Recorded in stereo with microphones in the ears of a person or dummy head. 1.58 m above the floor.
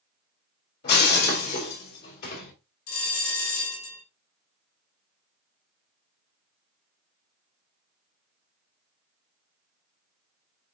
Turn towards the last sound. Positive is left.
turn(degrees=80)